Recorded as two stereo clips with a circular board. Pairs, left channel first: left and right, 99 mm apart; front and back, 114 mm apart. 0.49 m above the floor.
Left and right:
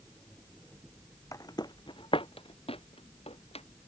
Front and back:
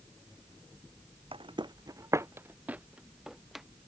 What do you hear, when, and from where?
1.3 s footsteps: 145° left; by 3.6 s 90° left